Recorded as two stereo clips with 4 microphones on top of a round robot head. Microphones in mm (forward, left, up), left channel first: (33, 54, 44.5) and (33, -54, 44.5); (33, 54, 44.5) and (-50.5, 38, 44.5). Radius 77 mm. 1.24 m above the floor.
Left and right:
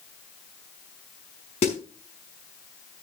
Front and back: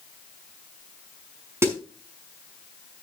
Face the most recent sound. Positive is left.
turn(degrees=130)